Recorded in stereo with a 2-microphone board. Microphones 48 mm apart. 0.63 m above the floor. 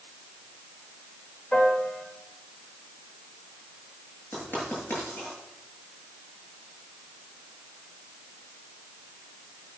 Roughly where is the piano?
Left.